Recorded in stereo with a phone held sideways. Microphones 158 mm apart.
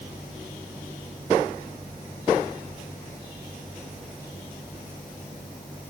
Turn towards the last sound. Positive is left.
No sound to turn to.